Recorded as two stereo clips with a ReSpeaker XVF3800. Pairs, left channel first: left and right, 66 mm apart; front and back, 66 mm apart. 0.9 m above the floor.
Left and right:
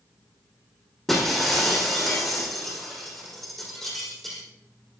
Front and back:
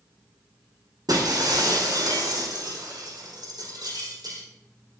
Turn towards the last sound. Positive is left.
turn(degrees=175)